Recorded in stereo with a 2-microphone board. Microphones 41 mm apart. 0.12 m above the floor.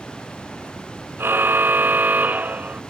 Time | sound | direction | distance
1.2 | a car horn | 65° right (ahead or behind) | ?